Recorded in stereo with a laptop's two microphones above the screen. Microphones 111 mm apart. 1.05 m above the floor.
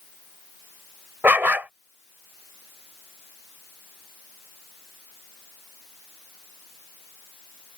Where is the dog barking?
15° right (ahead or behind).